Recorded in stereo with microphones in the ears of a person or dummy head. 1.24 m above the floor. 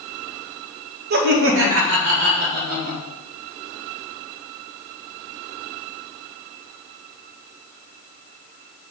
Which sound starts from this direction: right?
Laughter, at 1.1 s.